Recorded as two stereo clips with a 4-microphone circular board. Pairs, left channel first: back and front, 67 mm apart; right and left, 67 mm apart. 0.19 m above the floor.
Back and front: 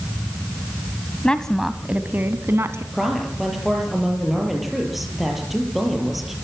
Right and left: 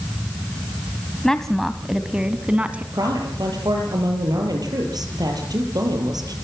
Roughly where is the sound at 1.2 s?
Behind right.